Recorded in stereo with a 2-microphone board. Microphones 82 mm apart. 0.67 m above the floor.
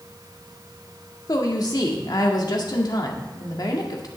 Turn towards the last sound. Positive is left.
turn(degrees=55)  # may be behind; listen again after turning